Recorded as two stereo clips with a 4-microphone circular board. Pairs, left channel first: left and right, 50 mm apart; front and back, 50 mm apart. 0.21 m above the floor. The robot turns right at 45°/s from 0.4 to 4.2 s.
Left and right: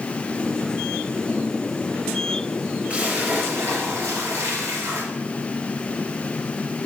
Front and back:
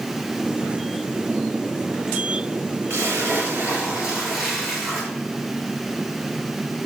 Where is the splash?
150° right, 3 m; by 5.1 s 95° right, 3 m.